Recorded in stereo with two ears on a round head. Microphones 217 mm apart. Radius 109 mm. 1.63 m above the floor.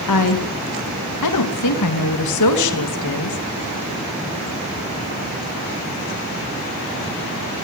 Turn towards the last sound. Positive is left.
turn(degrees=85)